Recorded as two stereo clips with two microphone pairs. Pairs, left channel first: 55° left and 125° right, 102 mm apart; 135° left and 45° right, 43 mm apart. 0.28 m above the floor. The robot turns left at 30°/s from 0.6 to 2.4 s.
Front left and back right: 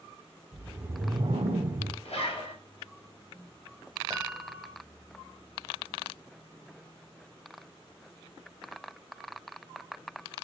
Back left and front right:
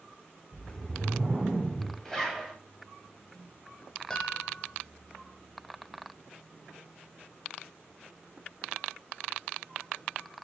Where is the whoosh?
85° right, 0.5 m; by 1.9 s 125° right, 0.5 m.